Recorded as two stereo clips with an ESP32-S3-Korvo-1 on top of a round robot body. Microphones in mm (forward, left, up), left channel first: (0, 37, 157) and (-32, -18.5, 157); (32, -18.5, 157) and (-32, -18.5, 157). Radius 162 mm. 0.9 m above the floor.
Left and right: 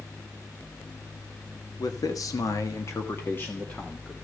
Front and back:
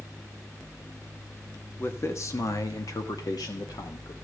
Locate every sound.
1.8 s a man speaking: 50° left, 1.6 m; by 4.1 s 10° right, 2 m